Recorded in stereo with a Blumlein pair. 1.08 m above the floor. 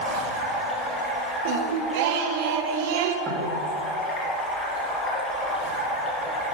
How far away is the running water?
About 5 m.